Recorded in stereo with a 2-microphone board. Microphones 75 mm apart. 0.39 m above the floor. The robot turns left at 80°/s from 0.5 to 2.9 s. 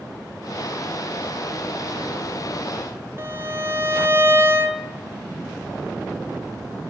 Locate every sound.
3.2 s a violin: 35° right (ahead or behind), 2.0 m